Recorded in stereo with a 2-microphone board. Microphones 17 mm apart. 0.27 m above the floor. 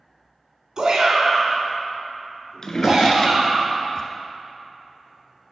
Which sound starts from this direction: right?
A shout, at 0.8 s.